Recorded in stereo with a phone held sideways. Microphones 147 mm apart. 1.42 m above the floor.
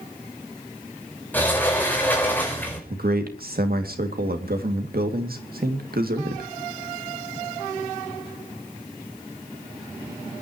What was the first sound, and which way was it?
A sliding door, 10° left (ahead or behind).